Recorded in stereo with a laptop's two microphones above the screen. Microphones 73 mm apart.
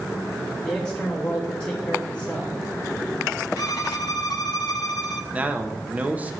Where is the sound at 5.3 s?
20° right (ahead or behind), 0.9 m.